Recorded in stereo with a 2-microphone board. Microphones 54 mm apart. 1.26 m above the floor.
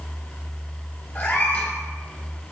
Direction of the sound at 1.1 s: 45° left (ahead or behind).